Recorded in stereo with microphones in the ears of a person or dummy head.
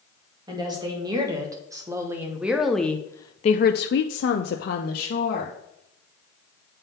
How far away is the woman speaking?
About 1.9 m.